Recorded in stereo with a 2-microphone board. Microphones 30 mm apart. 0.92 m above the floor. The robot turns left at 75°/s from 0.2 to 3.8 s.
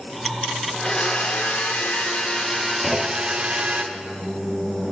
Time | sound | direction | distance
0.7 | a blender | 160° left | 1.7 m
2.8 | a clunk | straight behind | 1.9 m